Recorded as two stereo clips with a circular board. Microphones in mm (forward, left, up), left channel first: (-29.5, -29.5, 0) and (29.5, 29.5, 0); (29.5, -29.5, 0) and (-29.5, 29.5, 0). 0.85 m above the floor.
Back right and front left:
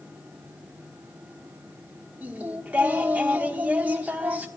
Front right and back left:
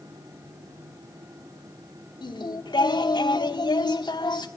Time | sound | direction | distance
2.2 | singing | 25° right | 1.4 m